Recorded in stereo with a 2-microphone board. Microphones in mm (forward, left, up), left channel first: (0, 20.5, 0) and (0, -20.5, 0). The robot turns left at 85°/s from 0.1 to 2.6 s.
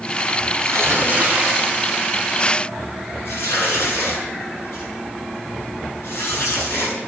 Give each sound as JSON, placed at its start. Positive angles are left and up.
{"t": 0.6, "sound": "tearing paper", "side_deg": -80, "distance_m": 9.0}